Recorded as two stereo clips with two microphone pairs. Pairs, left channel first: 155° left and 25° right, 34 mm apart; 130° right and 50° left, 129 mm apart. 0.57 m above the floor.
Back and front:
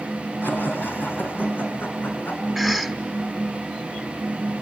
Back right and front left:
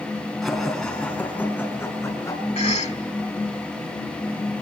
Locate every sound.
0.4 s laughter: 140° left, 6 m; by 2.4 s 165° left, 7 m
2.5 s a cough: 120° right, 1.6 m